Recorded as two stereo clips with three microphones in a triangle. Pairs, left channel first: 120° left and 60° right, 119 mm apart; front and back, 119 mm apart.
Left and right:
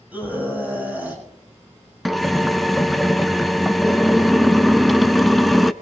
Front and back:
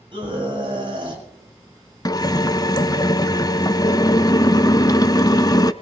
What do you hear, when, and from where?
0.1 s a scream: 135° right, 6.5 m
2.0 s a drill: 30° left, 0.5 m